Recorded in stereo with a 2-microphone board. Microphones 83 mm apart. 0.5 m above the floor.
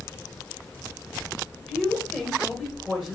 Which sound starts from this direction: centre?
A woman speaking, at 1.7 s.